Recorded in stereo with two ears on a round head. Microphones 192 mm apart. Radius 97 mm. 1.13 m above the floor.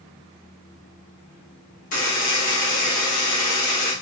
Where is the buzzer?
40° left (ahead or behind), 1.3 m.